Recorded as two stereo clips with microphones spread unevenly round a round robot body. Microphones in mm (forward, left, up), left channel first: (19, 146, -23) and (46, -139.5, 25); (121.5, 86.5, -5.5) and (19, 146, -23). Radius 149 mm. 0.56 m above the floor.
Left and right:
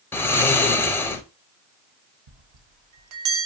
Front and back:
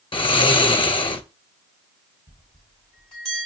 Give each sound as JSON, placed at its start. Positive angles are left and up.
{"t": 0.1, "sound": "snoring", "azimuth_deg": 10, "distance_m": 0.5}
{"t": 2.3, "sound": "a bell", "azimuth_deg": -95, "distance_m": 0.6}